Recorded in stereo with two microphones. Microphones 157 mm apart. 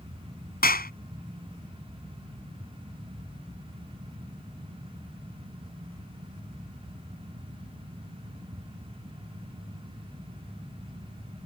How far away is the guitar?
No guitar in this recording.